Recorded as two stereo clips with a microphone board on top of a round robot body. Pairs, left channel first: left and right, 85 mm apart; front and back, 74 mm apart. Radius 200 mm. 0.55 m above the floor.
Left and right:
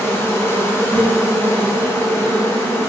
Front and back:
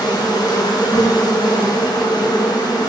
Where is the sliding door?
I don't hear a sliding door.